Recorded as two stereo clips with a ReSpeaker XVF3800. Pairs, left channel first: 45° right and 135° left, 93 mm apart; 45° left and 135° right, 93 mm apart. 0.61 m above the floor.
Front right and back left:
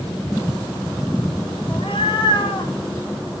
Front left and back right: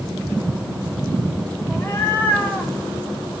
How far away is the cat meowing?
About 3 m.